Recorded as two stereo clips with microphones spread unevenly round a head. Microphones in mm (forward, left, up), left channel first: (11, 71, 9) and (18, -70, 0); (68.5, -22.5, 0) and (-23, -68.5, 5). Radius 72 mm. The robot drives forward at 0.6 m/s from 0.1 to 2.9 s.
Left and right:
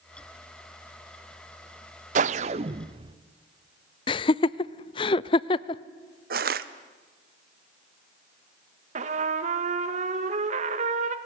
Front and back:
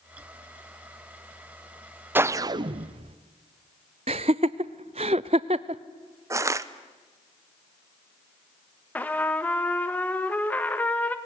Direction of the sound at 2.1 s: 95° right.